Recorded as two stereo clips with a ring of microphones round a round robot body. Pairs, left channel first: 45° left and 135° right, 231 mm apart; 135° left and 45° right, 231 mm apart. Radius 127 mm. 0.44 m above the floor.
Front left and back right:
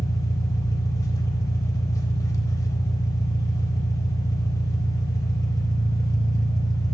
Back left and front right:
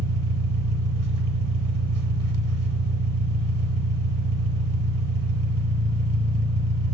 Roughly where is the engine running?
Ahead right.